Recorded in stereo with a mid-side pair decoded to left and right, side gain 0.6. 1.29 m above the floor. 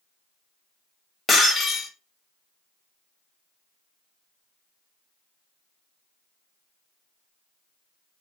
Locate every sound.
1.3 s breaking glass: 20° left, 1.8 m